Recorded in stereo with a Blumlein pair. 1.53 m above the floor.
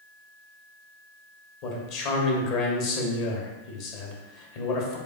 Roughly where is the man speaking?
Ahead left.